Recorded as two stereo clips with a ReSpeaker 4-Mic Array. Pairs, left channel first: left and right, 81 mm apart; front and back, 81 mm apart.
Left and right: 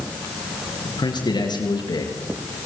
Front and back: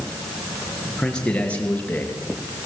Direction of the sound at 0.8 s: 80° left.